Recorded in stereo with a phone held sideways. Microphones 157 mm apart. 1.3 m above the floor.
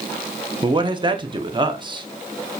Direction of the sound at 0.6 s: 30° right (ahead or behind).